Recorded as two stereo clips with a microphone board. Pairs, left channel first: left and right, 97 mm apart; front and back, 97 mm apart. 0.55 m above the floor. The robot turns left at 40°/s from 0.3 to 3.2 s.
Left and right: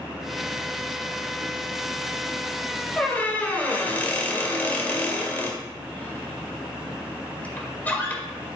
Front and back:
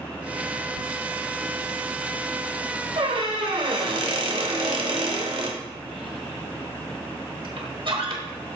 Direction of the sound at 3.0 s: 170° left.